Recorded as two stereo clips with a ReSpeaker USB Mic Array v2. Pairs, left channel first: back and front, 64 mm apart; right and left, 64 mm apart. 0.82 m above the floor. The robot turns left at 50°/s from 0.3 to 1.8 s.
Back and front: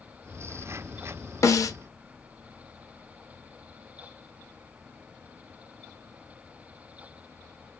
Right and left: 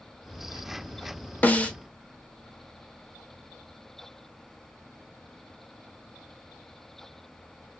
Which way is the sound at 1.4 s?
150° right.